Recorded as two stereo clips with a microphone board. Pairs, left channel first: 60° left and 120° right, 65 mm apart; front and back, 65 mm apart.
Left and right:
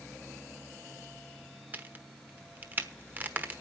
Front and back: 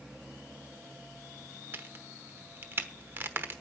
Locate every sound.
1.7 s a crack: 160° right, 1.1 m